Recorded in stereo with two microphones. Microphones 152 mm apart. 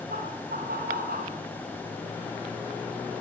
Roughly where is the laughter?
Right.